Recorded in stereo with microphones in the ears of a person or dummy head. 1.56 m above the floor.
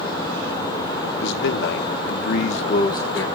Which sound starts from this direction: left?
A man speaking, at 1.2 s.